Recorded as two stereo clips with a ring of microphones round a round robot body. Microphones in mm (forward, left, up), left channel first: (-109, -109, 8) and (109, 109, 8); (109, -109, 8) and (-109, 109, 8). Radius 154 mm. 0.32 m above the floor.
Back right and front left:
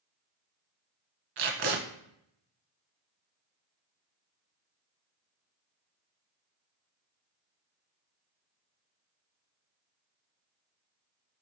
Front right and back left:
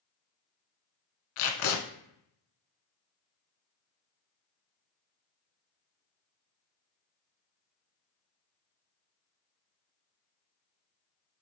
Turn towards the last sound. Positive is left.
turn(degrees=-10)